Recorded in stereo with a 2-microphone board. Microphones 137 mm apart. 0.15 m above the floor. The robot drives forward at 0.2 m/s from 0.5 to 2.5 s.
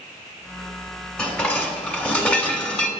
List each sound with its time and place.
1.2 s dishes clattering: 10° left (ahead or behind), 0.9 m